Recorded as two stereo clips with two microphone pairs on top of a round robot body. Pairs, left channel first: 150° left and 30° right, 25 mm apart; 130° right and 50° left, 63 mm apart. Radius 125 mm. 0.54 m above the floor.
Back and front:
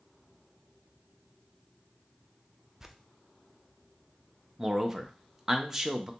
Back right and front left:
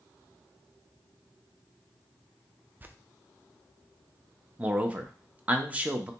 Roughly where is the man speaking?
Ahead left.